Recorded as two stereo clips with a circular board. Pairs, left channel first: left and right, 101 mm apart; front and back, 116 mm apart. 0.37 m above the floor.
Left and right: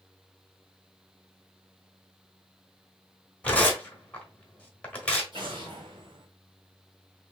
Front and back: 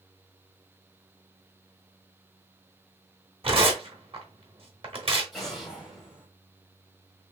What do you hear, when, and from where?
3.4 s tearing paper: 165° left, 1.2 m
5.3 s an explosion: 90° right, 1.8 m